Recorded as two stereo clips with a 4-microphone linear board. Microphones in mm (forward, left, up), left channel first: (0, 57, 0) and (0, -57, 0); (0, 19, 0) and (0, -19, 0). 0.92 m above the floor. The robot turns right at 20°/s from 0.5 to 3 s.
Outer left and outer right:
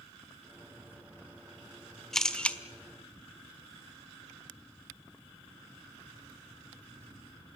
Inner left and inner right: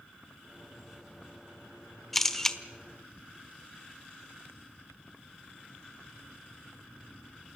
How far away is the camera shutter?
About 1.2 m.